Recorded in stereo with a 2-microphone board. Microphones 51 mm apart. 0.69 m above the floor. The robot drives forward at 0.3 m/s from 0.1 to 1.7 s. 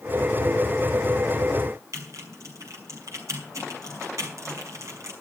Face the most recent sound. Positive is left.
turn(degrees=-75)  # may be behind; listen again after turning